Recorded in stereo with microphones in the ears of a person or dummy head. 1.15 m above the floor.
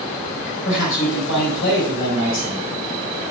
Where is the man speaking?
75° left (ahead or behind), 5 m.